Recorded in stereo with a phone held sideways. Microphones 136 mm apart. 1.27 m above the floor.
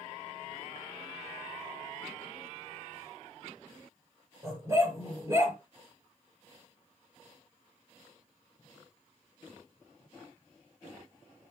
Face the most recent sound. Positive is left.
turn(degrees=-20)  # may be behind; listen again after turning